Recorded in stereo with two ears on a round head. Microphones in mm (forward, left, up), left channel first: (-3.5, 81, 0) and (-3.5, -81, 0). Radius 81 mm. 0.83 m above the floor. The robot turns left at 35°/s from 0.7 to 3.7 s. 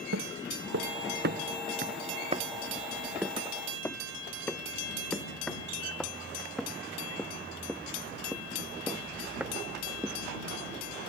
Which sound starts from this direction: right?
Footsteps, at 0.1 s.